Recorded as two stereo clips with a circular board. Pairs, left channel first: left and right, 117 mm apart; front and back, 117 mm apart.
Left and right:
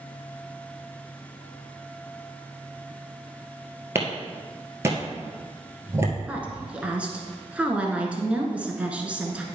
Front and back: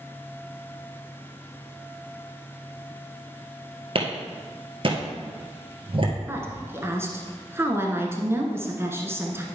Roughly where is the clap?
Behind right.